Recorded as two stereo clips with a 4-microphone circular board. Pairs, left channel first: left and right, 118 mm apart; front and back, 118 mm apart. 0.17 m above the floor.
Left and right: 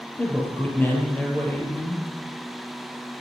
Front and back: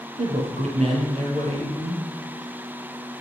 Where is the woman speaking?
165° left, 4 m.